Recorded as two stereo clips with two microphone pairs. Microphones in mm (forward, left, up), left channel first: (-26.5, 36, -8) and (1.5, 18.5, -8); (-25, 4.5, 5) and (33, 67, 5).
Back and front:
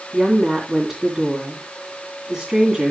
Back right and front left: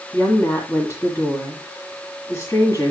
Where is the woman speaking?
100° right, 2.0 m.